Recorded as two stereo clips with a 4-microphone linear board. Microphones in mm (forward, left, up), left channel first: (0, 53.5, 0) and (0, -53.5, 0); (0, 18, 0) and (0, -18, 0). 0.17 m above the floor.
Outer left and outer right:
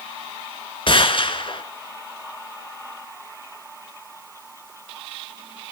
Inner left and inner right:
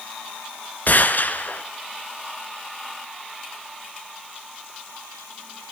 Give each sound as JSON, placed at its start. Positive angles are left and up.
{"t": 0.9, "sound": "a gunshot", "side_deg": 55, "distance_m": 1.4}